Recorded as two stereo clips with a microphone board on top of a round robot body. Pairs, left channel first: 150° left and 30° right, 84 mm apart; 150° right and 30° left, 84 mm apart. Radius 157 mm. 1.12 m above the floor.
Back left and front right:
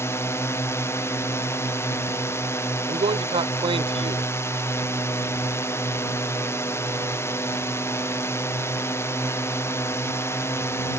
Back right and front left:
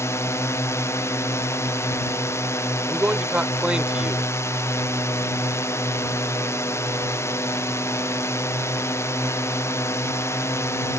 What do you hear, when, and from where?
0.0 s a drone: straight behind
2.9 s a man speaking: 50° right